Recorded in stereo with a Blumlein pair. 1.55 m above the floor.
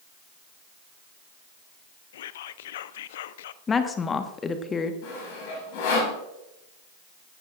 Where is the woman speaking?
20° left, 1.3 m.